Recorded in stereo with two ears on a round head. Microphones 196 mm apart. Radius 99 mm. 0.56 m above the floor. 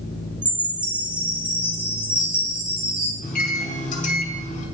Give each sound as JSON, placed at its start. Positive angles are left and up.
{"t": 0.4, "sound": "a chime", "side_deg": -5, "distance_m": 2.5}
{"t": 3.2, "sound": "a microwave", "side_deg": 35, "distance_m": 2.0}